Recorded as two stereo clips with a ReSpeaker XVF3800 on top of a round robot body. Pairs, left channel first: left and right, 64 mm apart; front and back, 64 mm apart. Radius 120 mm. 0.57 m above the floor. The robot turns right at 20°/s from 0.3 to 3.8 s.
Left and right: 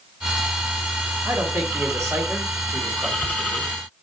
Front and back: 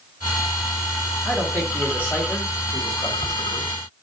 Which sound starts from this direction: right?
A man speaking, at 1.2 s.